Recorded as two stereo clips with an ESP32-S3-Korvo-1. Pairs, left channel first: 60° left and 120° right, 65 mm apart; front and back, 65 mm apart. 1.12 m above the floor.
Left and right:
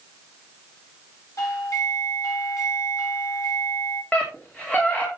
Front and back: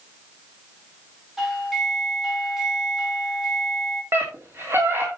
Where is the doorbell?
95° left, 5 m.